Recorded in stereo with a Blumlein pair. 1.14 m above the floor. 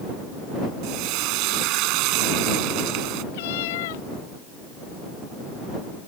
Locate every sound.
0.8 s frying: 40° right
3.3 s a cat meowing: 50° left